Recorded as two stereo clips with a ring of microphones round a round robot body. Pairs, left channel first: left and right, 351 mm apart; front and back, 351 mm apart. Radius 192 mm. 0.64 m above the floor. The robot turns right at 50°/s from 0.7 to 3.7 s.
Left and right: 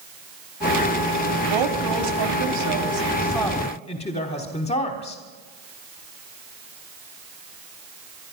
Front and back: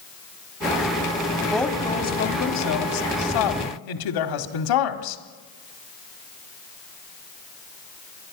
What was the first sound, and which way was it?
A woman speaking, 95° right.